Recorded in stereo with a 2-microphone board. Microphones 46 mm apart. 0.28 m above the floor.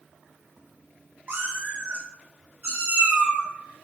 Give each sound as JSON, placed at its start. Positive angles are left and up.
{"t": 1.3, "sound": "a cat meowing", "side_deg": -45, "distance_m": 0.6}